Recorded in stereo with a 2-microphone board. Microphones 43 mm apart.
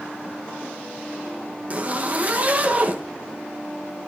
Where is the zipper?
35° right (ahead or behind), 1.2 m.